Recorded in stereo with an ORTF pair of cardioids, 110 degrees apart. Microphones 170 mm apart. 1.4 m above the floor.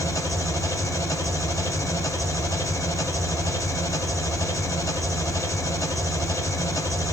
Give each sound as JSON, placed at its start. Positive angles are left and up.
{"t": 0.0, "sound": "an engine running", "azimuth_deg": 20, "distance_m": 4.5}